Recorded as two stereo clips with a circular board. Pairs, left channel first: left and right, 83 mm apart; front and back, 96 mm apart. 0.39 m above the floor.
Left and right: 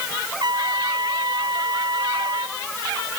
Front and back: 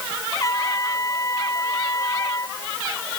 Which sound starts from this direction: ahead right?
A trumpet, at 0.4 s.